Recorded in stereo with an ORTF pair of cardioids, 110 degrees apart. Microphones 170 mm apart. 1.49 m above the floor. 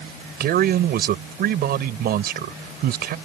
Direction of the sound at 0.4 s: 65° right.